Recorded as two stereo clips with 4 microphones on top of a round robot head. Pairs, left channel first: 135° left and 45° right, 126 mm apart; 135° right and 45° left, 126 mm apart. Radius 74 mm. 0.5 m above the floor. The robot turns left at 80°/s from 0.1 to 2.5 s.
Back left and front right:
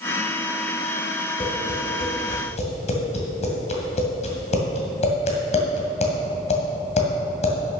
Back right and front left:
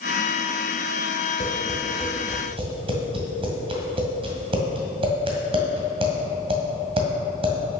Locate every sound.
1.4 s tapping: 175° right, 1.9 m; by 7.5 s 95° left, 1.9 m